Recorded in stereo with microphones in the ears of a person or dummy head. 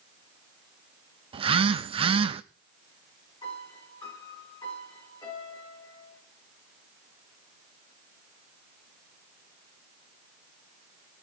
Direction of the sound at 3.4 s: 20° left (ahead or behind).